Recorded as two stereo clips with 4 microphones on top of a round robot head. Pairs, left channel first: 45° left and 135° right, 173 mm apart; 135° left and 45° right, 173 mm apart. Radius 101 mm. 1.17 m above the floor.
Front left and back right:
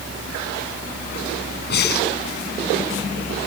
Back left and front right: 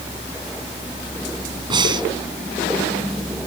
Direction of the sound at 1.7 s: 20° left.